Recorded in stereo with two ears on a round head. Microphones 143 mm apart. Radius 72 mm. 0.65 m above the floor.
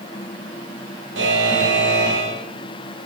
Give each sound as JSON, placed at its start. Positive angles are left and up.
{"t": 1.1, "sound": "a buzzer", "side_deg": -85, "distance_m": 10.0}